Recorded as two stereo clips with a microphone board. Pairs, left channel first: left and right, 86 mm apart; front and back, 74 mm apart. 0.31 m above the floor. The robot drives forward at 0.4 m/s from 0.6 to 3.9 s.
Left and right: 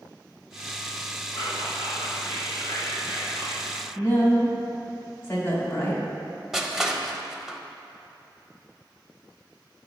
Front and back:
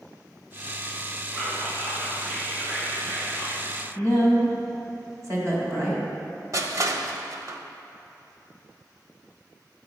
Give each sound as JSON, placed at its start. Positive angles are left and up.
{"t": 1.3, "sound": "whispering", "azimuth_deg": 115, "distance_m": 1.9}
{"t": 4.0, "sound": "a woman speaking", "azimuth_deg": 150, "distance_m": 1.8}
{"t": 6.5, "sound": "crushing", "azimuth_deg": -170, "distance_m": 0.5}